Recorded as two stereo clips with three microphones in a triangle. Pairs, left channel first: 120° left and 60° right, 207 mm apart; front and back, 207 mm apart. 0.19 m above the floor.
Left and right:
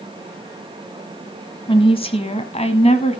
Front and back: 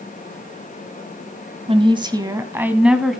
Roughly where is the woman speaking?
Behind left.